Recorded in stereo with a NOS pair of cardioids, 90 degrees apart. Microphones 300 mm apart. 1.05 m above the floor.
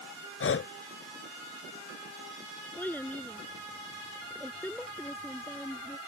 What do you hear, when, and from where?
0.4 s breathing: 45° left
2.8 s a child speaking: 5° left